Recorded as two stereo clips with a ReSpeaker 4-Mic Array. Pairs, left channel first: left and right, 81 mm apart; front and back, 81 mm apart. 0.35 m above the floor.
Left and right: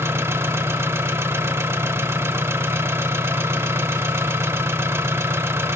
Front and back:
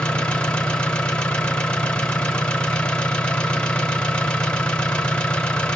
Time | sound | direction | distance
0.0 | an engine running | 70° right | 0.8 m